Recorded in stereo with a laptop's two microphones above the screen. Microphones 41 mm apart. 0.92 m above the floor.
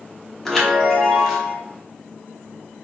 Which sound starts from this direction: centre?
A chime, at 0.5 s.